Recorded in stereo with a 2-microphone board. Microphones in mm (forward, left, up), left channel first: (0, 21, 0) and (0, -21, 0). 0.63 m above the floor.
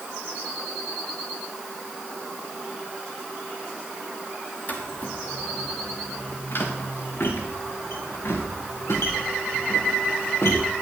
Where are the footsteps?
40° left (ahead or behind), 3.5 m; by 10.7 s 85° left, 5 m.